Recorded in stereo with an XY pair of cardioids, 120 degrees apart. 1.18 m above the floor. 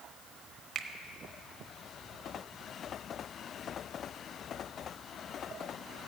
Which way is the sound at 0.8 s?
40° right.